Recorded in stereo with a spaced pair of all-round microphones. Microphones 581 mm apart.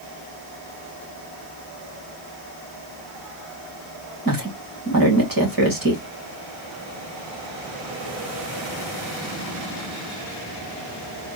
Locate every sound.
4.2 s a woman speaking: 35° right (ahead or behind), 2 m